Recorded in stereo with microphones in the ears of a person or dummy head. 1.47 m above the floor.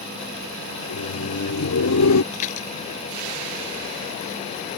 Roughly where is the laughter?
Left.